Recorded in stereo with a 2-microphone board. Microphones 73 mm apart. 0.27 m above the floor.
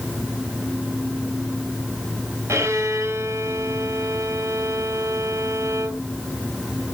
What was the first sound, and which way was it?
A violin, 40° right (ahead or behind).